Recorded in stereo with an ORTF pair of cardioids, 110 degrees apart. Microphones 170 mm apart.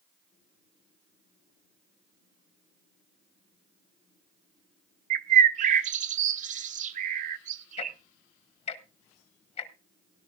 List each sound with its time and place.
5.1 s a bird: 50° right, 0.7 m
7.8 s ticking: 40° left, 1.1 m